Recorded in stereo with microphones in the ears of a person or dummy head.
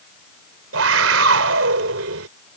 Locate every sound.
0.7 s a scream: 80° right